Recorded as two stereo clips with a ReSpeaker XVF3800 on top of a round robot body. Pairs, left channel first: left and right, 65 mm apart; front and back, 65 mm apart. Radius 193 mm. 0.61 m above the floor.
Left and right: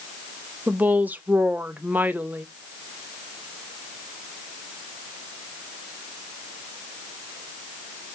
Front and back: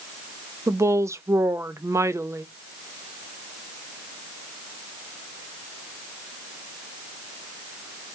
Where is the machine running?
I don't hear a machine running.